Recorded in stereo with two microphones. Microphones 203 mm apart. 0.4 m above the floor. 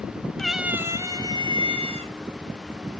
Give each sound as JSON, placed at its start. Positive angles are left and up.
{"t": 0.4, "sound": "a cat meowing", "side_deg": 5, "distance_m": 0.8}